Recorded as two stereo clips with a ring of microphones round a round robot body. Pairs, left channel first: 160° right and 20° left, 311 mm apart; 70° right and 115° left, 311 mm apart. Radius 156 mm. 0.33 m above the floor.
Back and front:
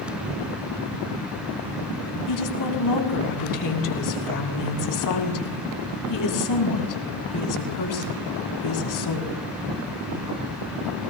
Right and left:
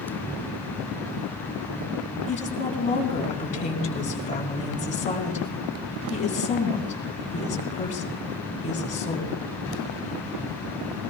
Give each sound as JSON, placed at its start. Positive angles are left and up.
{"t": 2.3, "sound": "a woman speaking", "azimuth_deg": -135, "distance_m": 3.5}